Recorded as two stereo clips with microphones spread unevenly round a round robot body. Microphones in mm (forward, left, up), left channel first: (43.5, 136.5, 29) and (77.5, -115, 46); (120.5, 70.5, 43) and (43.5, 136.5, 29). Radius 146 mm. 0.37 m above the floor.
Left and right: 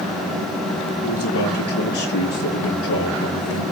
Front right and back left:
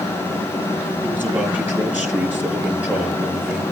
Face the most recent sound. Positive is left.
turn(degrees=65)